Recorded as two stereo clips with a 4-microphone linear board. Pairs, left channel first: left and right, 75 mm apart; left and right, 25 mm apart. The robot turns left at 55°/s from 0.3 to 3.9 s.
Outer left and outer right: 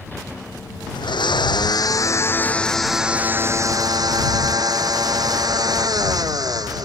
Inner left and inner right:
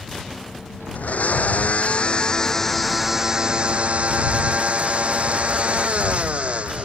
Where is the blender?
105° left; by 6.8 s 60° right.